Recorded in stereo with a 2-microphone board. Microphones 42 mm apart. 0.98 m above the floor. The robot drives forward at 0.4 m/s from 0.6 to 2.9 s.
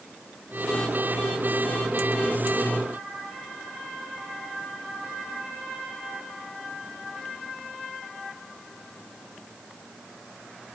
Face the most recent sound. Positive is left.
No sound to turn to.